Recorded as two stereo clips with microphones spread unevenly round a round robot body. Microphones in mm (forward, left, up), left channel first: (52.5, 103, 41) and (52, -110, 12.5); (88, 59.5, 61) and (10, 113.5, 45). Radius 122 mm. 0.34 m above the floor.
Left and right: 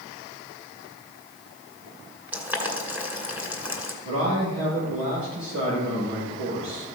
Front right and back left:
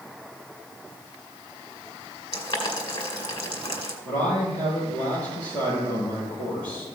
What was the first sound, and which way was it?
Boiling, 10° right.